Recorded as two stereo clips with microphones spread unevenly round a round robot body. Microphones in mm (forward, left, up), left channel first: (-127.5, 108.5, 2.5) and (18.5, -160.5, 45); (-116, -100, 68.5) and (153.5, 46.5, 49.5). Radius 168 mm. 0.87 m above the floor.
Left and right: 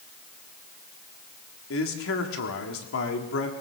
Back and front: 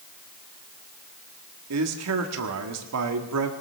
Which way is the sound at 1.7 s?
70° left.